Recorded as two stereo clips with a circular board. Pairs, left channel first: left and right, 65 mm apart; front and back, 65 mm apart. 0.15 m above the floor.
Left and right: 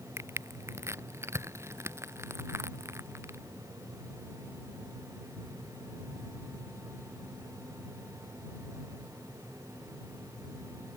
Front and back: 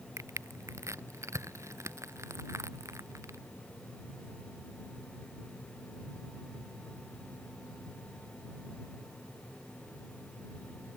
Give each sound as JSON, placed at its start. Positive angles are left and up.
{"t": 0.2, "sound": "crushing", "azimuth_deg": -135}